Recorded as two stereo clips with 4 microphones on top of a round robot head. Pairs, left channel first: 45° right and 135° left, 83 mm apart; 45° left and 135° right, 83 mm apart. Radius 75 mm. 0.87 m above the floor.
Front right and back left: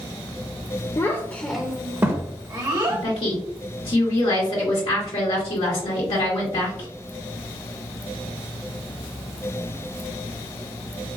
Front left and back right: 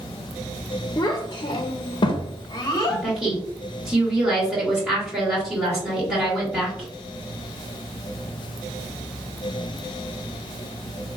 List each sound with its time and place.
1.0 s a child speaking: straight ahead, 0.6 m; by 3.0 s 95° left, 1.2 m
2.9 s a woman speaking: 50° right, 2 m